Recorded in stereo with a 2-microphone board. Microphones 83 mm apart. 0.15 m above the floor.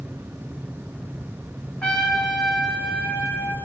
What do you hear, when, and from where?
1.8 s a trumpet: 15° left (ahead or behind), 3 m